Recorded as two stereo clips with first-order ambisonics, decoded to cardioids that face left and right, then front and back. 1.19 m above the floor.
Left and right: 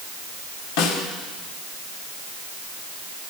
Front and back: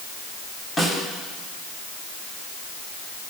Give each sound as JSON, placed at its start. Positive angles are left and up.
{"t": 0.8, "sound": "a snare drum", "azimuth_deg": 80, "distance_m": 2.0}